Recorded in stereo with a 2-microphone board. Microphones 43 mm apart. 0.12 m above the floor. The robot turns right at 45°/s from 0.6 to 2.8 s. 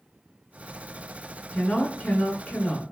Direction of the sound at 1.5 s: 50° left.